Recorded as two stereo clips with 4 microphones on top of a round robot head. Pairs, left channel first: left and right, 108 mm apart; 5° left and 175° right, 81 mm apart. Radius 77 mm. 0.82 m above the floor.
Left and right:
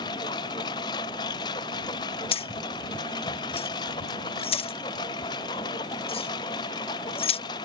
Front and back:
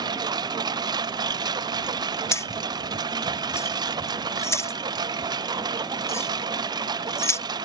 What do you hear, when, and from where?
0.0 s a lawn mower: 150° left
2.3 s keys jangling: 60° left